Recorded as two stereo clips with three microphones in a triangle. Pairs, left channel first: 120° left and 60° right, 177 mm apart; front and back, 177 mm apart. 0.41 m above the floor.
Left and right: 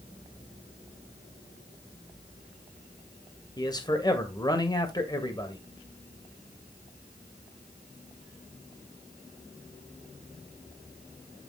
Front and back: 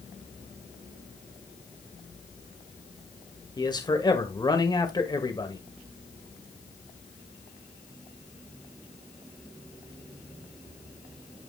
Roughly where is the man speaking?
Ahead left.